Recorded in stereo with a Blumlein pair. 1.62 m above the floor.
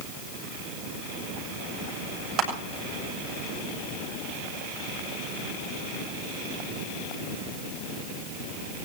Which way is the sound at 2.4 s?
35° right.